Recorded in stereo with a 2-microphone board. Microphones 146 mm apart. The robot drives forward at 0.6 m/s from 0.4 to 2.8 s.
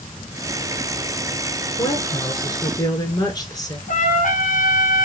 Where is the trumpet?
65° left (ahead or behind), 1.6 m.